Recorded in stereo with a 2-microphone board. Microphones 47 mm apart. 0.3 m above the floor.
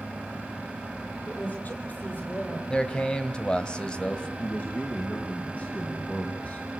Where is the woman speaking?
40° left (ahead or behind), 7.5 m.